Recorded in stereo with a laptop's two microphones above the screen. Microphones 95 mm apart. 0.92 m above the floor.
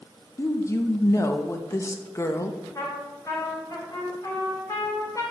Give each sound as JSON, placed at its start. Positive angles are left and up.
{"t": 0.4, "sound": "a woman speaking", "side_deg": 30, "distance_m": 0.5}
{"t": 2.8, "sound": "a trumpet", "side_deg": 40, "distance_m": 3.0}